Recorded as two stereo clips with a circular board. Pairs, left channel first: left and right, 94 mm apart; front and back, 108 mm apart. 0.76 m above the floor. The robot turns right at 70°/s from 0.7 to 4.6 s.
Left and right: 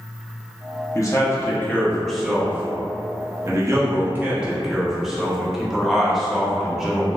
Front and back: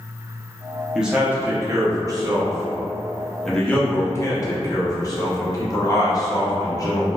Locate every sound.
0.9 s a man speaking: 100° left, 0.7 m; by 7.2 s 5° right, 0.7 m